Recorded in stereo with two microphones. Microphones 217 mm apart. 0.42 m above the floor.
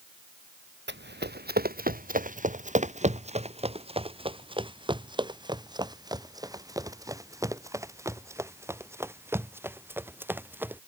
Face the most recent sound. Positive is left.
turn(degrees=-10)  # may be behind; listen again after turning